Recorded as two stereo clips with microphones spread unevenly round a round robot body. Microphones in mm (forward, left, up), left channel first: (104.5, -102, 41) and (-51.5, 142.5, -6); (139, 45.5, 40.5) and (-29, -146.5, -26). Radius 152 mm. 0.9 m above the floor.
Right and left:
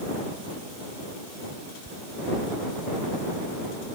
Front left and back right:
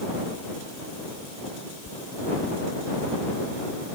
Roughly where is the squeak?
Ahead left.